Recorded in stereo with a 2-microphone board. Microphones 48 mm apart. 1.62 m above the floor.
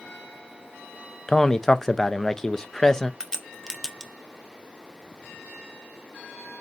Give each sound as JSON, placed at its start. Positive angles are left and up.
{"t": 1.3, "sound": "a man speaking", "side_deg": 10, "distance_m": 0.5}
{"t": 3.2, "sound": "a crack", "side_deg": 10, "distance_m": 0.8}